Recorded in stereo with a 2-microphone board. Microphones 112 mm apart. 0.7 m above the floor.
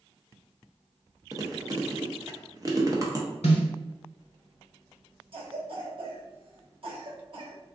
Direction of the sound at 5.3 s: 55° right (ahead or behind).